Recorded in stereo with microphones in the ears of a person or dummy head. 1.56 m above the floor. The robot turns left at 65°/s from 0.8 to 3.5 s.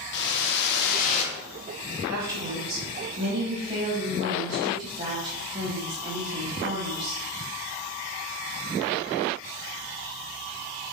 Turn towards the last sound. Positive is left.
turn(degrees=-155)